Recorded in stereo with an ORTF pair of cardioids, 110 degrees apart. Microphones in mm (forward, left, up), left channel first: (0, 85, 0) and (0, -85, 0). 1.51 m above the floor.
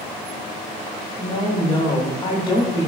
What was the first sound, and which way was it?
A woman speaking, 25° left.